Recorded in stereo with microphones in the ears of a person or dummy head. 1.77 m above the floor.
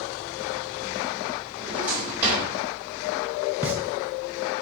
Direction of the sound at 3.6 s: 10° right (ahead or behind).